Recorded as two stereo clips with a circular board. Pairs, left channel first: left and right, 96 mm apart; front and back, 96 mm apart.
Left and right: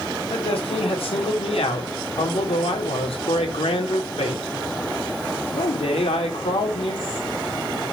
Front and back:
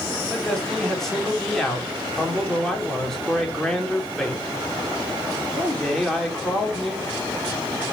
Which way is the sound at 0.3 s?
85° left.